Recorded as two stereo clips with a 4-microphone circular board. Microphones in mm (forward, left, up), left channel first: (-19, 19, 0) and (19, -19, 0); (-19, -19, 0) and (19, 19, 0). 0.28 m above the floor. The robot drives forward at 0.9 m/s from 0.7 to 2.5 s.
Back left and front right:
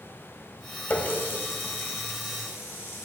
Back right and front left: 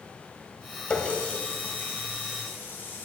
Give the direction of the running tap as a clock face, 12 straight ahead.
6 o'clock.